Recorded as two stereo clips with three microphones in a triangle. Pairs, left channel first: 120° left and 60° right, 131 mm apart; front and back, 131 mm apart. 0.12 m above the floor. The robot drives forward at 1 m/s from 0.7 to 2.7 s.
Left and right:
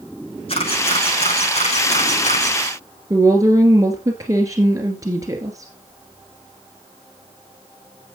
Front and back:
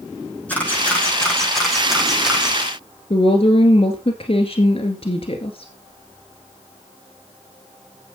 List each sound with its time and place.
0.5 s a camera shutter: 75° left, 6 m; by 2.6 s 95° left, 5.5 m
3.1 s a woman speaking: 5° right, 1.9 m